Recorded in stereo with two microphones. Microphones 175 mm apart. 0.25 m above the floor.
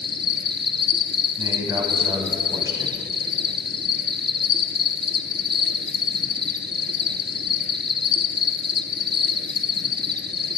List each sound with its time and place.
0.0 s an insect: 70° right (ahead or behind), 1.0 m
1.4 s a man speaking: 20° right (ahead or behind), 1.8 m